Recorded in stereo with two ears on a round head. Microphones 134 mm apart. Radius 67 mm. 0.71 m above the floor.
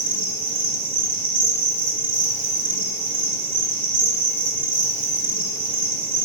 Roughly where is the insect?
Right.